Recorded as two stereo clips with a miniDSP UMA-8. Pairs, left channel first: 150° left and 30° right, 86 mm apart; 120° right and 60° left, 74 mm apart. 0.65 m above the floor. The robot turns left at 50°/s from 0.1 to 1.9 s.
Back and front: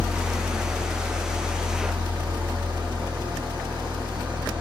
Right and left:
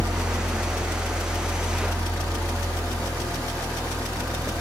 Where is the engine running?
55° left, 1.5 m; by 4.6 s 35° right, 1.5 m.